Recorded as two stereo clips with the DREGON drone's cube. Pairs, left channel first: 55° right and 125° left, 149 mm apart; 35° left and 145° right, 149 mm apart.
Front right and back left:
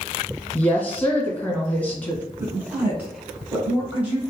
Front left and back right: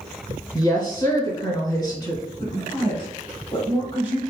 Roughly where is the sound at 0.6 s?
Ahead.